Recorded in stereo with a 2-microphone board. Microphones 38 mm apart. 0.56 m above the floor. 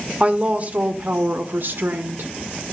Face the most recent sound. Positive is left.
turn(degrees=-55)  # may be behind; listen again after turning